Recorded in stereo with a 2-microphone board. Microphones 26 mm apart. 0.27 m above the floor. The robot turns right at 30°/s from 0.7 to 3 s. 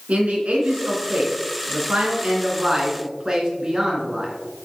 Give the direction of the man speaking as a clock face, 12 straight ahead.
3 o'clock.